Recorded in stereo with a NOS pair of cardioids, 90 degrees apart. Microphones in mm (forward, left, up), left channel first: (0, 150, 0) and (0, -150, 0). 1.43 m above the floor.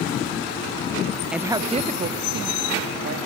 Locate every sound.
1.3 s a woman speaking: straight ahead, 1.1 m; by 3.2 s 45° right, 2.5 m